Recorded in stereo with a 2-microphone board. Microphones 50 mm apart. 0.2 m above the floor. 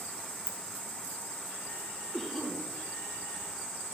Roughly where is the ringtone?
Left.